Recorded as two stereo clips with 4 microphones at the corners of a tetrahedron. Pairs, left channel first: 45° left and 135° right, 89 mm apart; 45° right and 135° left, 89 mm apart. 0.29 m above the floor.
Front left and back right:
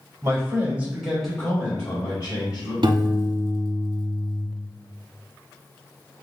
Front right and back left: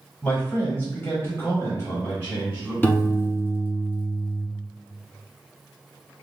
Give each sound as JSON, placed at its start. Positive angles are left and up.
{"t": 0.2, "sound": "a man speaking", "azimuth_deg": -105, "distance_m": 1.2}
{"t": 2.8, "sound": "a piano", "azimuth_deg": -110, "distance_m": 0.6}